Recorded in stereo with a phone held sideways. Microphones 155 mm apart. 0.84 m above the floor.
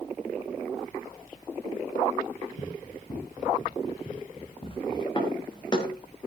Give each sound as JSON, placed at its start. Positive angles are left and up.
{"t": 2.6, "sound": "running footsteps", "side_deg": 65, "distance_m": 3.5}
{"t": 5.2, "sound": "footsteps", "side_deg": 30, "distance_m": 4.0}